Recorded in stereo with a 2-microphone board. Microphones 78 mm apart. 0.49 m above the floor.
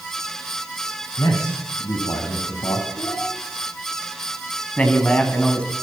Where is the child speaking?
55° left (ahead or behind), 5.5 m.